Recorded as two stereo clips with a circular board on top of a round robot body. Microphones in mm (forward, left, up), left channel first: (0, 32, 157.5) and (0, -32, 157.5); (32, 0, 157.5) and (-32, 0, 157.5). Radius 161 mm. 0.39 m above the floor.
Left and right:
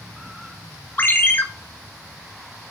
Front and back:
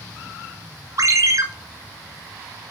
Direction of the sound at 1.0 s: 150° left.